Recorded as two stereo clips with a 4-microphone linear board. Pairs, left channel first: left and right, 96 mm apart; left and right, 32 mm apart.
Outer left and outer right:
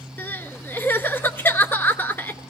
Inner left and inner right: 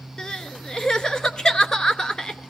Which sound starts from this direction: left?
Crying, at 0.2 s.